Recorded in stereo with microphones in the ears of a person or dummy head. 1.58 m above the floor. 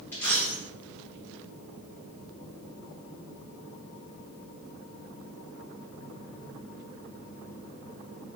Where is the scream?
I don't hear a scream.